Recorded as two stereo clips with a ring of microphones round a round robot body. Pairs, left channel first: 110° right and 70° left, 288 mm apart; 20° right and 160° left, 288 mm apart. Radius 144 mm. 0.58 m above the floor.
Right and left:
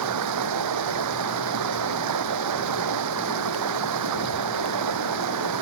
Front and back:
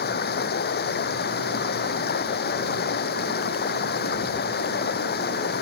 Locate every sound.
0.0 s running water: 35° left